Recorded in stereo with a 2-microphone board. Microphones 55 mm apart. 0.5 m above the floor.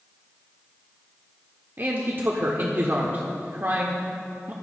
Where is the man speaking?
40° right (ahead or behind), 1.2 m.